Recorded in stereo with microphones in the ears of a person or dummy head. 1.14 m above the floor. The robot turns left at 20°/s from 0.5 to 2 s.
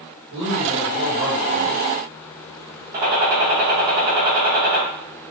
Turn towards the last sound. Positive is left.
turn(degrees=-25)  # may be behind; listen again after turning